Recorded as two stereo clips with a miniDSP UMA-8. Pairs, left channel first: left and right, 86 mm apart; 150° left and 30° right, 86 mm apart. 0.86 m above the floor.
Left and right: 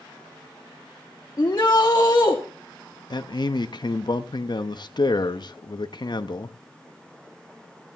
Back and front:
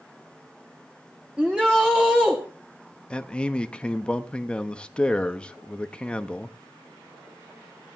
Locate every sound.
1.4 s a shout: 45° left, 1.1 m
3.1 s a man speaking: 75° left, 0.7 m